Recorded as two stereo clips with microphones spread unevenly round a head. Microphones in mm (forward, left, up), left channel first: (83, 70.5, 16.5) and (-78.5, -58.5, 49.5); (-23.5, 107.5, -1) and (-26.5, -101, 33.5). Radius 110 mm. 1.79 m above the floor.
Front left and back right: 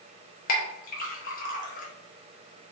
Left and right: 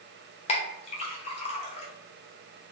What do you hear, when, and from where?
0.5 s a clink: 40° left, 0.8 m